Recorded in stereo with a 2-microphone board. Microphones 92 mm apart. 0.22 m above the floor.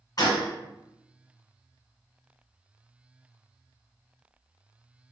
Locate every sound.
0.2 s a gunshot: 45° left (ahead or behind), 1.1 m